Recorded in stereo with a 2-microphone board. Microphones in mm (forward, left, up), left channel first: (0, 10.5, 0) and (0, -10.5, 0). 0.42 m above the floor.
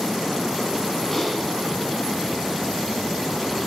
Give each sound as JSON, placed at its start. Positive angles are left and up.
{"t": 1.1, "sound": "typing on a keyboard", "side_deg": 10, "distance_m": 3.5}